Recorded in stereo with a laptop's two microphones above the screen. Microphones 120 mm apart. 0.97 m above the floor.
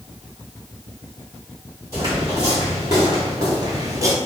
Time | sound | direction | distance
1.9 | footsteps | 30° right (ahead or behind) | 1.9 m